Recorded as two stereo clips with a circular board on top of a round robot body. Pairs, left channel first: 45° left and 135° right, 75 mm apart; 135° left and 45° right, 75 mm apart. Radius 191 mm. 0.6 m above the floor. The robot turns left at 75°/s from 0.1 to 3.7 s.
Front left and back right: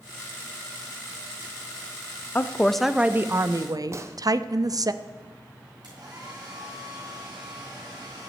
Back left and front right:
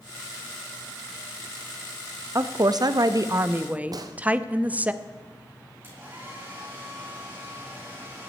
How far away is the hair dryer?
About 4.5 m.